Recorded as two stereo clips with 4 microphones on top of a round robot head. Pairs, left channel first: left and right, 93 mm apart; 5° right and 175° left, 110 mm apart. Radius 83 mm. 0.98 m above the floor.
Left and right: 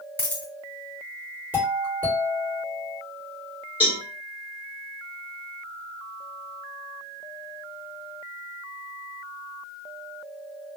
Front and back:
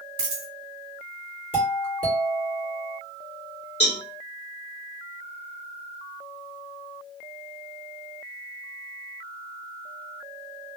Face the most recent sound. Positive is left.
turn(degrees=-15)